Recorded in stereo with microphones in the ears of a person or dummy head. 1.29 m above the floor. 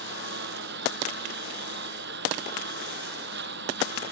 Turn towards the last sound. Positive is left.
turn(degrees=-60)  # may be behind; listen again after turning